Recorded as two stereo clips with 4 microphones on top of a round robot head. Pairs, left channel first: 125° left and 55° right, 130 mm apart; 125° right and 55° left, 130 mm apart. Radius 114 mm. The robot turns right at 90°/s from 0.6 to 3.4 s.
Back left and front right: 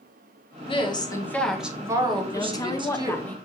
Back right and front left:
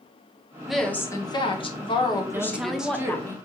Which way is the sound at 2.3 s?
100° left.